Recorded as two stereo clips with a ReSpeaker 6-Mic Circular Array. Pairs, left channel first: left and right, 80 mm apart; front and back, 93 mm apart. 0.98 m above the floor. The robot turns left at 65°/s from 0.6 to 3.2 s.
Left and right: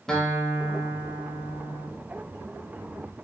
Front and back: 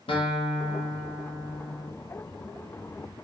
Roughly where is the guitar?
Ahead.